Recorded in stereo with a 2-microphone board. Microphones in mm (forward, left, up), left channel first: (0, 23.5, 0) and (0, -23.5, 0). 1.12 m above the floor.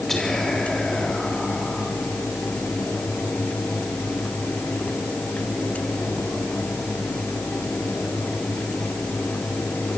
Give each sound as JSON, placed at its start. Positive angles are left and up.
{"t": 0.1, "sound": "whispering", "side_deg": 10, "distance_m": 3.0}